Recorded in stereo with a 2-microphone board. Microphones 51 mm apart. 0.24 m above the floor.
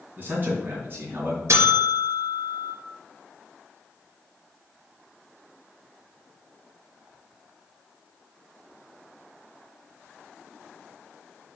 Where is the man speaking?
40° right (ahead or behind), 2.5 m; by 1.4 s 45° right (ahead or behind), 3 m.